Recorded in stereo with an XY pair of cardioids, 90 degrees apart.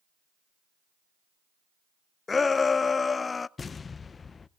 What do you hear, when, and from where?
2.3 s a shout: 35° left, 0.5 m
3.6 s an explosion: 40° left, 0.5 m